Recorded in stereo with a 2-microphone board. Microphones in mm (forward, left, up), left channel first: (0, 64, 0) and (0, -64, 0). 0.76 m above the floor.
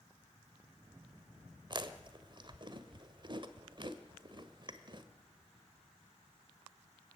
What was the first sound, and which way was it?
Chewing, 40° right (ahead or behind).